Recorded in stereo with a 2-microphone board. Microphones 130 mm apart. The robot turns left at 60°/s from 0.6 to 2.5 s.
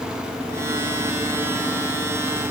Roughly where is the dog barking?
No dog barking in this recording.